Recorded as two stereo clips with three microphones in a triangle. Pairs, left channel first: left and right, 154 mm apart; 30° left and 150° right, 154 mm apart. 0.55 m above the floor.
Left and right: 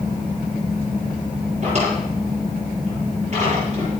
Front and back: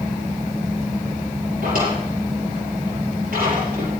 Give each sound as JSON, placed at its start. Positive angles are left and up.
{"t": 1.6, "sound": "a drawer", "azimuth_deg": -135, "distance_m": 6.0}